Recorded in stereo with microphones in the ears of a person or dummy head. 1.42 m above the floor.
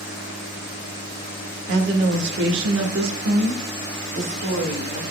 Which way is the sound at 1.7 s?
65° right (ahead or behind).